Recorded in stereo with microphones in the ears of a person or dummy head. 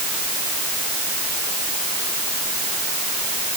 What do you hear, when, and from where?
Only background noise.